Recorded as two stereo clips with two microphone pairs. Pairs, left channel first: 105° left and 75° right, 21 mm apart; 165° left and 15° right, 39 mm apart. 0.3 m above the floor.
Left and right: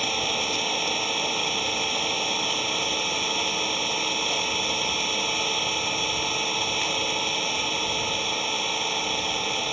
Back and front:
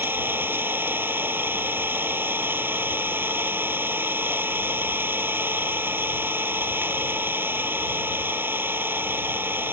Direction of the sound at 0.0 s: 10° left.